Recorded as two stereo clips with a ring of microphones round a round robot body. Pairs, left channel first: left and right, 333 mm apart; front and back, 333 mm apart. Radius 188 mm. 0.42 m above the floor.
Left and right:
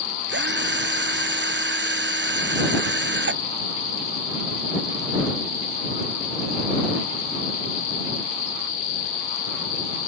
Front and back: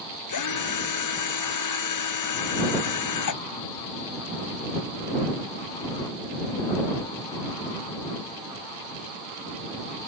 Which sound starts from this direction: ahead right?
A drill, at 0.3 s.